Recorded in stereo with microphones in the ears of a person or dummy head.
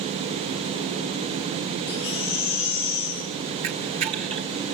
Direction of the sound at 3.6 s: 35° right (ahead or behind).